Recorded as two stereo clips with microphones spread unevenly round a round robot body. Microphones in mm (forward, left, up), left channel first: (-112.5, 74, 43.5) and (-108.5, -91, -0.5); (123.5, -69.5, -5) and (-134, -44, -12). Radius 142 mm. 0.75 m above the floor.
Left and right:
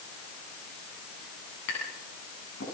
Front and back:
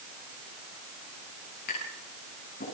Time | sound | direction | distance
1.7 | tapping | 55° left | 9 m